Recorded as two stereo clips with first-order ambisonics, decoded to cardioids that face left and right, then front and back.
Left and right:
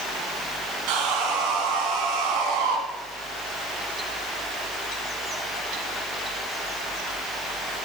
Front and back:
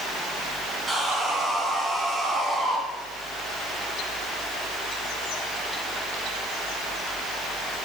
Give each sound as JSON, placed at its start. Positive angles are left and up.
{"t": 0.9, "sound": "sawing", "azimuth_deg": -105, "distance_m": 3.5}